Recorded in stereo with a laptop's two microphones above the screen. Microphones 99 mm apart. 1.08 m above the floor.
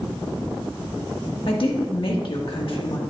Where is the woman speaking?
60° left (ahead or behind), 1.5 m.